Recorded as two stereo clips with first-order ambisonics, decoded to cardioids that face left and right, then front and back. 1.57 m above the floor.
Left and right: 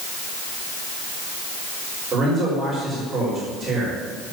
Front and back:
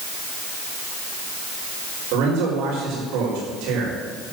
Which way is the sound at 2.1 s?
160° right.